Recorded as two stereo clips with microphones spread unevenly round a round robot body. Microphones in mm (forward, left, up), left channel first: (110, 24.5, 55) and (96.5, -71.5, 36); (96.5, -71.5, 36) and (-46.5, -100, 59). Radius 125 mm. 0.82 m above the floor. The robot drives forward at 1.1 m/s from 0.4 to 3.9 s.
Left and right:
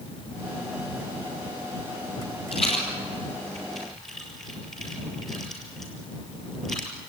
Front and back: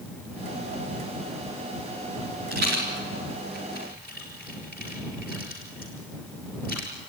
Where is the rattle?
145° left, 3.5 m; by 6.9 s 155° left, 5 m.